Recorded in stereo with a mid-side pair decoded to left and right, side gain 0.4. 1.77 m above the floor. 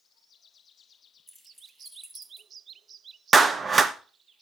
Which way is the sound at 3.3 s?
40° right.